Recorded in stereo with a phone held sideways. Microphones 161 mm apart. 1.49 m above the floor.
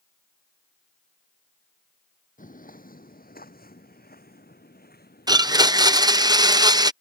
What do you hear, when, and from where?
2.4 s footsteps: 55° left (ahead or behind); by 6.3 s 80° left
5.3 s a blender: 25° right (ahead or behind)